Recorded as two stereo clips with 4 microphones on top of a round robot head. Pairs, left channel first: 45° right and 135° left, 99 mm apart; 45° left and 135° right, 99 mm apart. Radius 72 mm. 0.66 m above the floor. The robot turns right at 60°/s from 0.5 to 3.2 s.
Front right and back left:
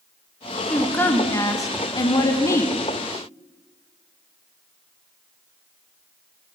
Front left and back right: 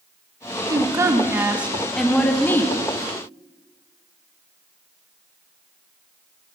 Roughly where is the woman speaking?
Behind right.